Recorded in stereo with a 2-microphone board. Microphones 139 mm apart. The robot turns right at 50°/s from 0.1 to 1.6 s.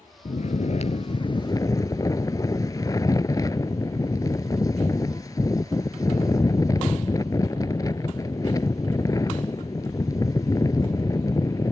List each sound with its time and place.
0.2 s snoring: 80° left; by 11.7 s 150° left